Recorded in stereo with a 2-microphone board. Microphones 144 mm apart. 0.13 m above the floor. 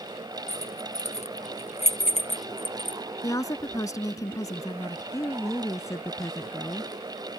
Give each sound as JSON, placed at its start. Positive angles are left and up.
{"t": 0.5, "sound": "keys jangling", "side_deg": 45}
{"t": 3.2, "sound": "a woman speaking", "side_deg": 25}
{"t": 5.1, "sound": "a woman speaking", "side_deg": 20}